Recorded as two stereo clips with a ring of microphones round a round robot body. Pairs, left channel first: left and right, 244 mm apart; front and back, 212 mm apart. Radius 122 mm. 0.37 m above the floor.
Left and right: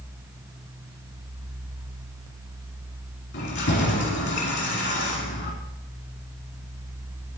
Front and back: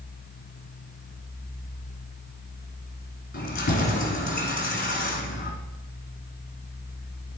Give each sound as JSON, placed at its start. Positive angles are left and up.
{"t": 3.3, "sound": "keys jangling", "azimuth_deg": 45, "distance_m": 2.5}